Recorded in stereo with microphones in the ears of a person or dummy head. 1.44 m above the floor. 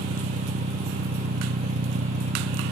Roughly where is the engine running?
Right.